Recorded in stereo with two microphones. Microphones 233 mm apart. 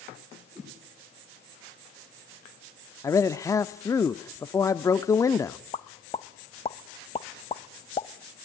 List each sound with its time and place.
0.6 s a whoosh: 5° right (ahead or behind), 5.5 m
3.0 s a man speaking: 15° left (ahead or behind), 0.7 m
5.7 s a pop: 25° left (ahead or behind), 0.8 m